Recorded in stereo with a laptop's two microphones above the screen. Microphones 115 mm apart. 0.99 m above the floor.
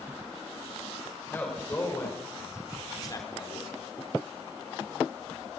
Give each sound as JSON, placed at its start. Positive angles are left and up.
{"t": 1.3, "sound": "a man speaking", "side_deg": 15, "distance_m": 5.0}